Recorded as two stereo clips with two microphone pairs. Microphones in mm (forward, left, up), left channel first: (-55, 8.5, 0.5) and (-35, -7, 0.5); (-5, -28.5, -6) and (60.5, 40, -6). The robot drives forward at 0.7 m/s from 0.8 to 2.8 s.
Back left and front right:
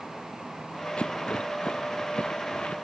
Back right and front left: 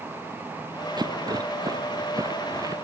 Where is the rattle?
90° left; by 2.8 s 100° left.